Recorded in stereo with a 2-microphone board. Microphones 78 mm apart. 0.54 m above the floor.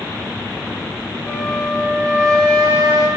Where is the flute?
5° left (ahead or behind), 5.5 m.